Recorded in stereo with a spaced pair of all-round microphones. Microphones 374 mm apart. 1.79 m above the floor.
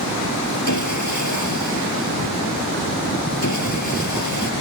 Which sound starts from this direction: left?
Sawing, at 0.7 s.